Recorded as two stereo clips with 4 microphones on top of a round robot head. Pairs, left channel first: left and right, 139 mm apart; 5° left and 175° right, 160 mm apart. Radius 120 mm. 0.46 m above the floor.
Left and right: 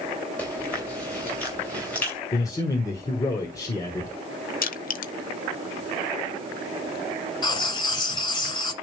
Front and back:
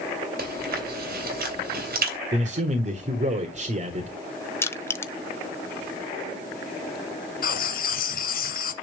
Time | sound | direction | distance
0.4 | chewing | 170° left | 3.5 m
2.3 | a man speaking | 155° left | 1.4 m
4.6 | crushing | 80° left | 1.0 m
7.4 | writing | 30° left | 2 m